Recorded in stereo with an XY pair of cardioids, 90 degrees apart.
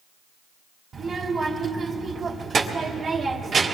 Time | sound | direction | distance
0.9 | a child speaking | 55° right | 1.6 m